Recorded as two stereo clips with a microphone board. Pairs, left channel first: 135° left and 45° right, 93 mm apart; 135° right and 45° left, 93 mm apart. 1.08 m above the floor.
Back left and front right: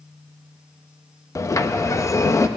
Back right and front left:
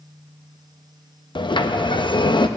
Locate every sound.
1.4 s a sliding door: 170° right, 0.7 m